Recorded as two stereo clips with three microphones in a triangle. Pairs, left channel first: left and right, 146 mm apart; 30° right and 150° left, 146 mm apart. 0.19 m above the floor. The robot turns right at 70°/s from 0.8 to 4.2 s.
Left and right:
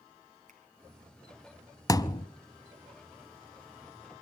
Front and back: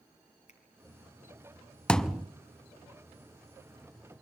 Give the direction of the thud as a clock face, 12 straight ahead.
11 o'clock.